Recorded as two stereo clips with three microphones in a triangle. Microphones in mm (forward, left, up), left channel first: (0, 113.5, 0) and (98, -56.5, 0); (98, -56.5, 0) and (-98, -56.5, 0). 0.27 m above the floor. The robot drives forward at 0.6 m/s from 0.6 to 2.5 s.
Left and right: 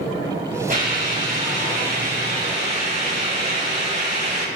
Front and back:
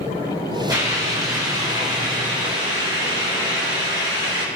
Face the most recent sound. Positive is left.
turn(degrees=-115)